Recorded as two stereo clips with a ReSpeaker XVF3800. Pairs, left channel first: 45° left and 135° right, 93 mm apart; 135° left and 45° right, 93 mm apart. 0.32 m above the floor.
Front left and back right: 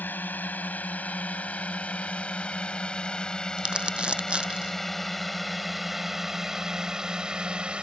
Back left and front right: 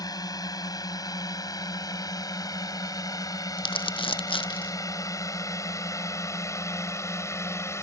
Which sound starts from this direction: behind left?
Crumpling, at 3.6 s.